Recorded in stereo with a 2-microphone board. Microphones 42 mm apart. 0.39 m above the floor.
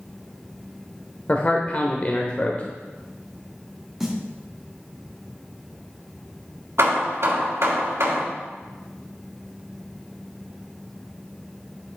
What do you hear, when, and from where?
1.3 s a man speaking: 35° left (ahead or behind), 1.0 m
4.0 s a snare drum: 5° right (ahead or behind), 2 m
6.8 s hammering: 65° right (ahead or behind), 3 m